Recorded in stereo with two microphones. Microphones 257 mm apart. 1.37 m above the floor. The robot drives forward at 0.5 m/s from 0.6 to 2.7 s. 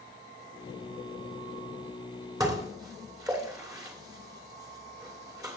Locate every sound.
2.4 s dishes clattering: 15° right (ahead or behind), 2.5 m